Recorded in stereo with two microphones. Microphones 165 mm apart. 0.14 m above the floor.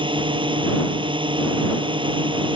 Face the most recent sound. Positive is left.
turn(degrees=-30)  # may be behind; listen again after turning